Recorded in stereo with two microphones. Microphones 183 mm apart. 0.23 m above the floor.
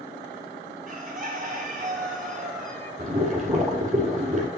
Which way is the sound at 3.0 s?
45° right (ahead or behind).